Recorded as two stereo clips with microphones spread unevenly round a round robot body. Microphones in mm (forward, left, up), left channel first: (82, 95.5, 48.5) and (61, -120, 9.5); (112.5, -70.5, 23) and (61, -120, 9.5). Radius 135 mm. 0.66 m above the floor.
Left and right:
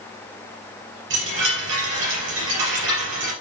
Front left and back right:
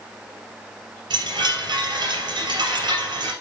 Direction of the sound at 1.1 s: 145° right.